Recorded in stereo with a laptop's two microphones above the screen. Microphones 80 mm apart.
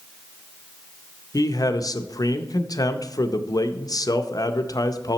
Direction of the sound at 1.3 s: 50° left (ahead or behind).